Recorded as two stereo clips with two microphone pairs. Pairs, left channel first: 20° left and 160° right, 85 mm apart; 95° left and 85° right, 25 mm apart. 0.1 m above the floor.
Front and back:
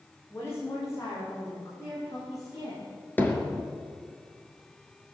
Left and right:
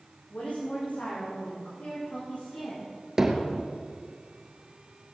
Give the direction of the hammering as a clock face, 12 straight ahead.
1 o'clock.